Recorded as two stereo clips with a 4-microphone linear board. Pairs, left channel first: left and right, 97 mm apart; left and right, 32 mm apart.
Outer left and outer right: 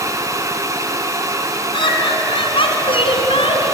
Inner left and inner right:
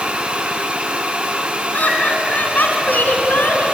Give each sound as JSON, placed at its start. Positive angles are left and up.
{"t": 1.7, "sound": "laughter", "side_deg": 60, "distance_m": 3.0}